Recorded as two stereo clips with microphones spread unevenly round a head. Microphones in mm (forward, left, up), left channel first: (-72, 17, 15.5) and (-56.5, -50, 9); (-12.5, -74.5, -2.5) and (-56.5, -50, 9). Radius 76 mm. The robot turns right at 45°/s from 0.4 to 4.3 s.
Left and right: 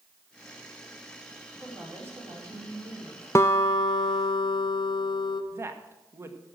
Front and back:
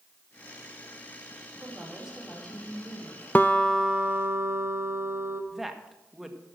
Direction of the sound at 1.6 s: 155° right.